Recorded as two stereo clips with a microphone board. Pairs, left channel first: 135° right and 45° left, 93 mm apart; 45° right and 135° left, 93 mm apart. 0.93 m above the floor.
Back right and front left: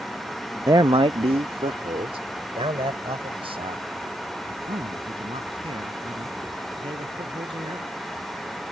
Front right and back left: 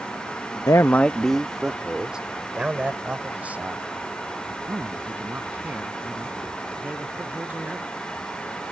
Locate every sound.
0.7 s a man speaking: 5° right; by 7.9 s 65° left